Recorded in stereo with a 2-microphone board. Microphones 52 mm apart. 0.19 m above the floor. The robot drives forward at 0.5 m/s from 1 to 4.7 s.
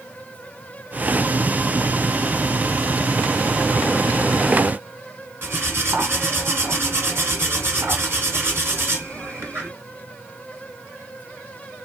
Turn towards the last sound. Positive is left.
turn(degrees=-45)  # may be behind; listen again after turning